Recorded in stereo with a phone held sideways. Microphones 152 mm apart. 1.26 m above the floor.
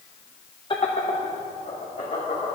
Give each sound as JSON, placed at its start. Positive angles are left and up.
{"t": 0.7, "sound": "laughter", "side_deg": 35, "distance_m": 0.7}